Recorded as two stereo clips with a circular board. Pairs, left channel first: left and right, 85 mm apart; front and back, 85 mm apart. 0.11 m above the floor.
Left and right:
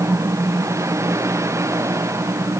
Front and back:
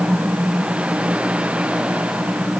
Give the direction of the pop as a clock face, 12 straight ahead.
No pop in this recording.